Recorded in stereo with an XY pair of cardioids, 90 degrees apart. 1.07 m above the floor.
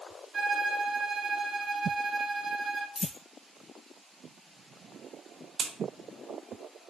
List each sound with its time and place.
0.3 s a violin: 40° right, 0.9 m
3.0 s a dropped coin: 45° left, 1.1 m
5.6 s a crack: 55° right, 0.6 m